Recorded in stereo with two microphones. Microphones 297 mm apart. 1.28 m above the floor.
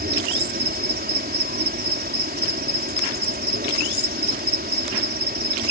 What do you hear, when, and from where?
0.0 s an insect: 30° right (ahead or behind)